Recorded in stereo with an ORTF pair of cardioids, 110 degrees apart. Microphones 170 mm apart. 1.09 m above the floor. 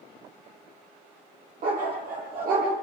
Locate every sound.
1.6 s a dog barking: 55° right, 9.5 m